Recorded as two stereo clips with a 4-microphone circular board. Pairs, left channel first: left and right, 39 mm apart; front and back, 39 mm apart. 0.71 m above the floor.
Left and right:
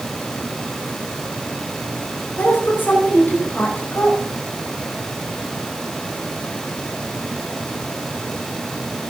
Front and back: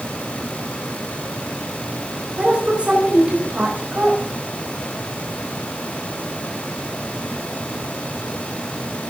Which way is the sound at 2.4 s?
125° left.